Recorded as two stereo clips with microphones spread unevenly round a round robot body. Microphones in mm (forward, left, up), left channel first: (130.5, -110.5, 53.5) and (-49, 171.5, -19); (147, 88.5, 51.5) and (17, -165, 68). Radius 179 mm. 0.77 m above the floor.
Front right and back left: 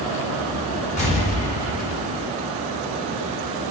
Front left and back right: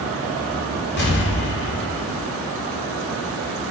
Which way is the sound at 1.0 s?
15° left.